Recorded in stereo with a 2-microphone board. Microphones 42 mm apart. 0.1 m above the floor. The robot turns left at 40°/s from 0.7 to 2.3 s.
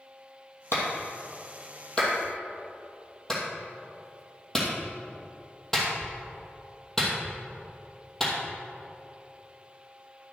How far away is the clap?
About 2.5 m.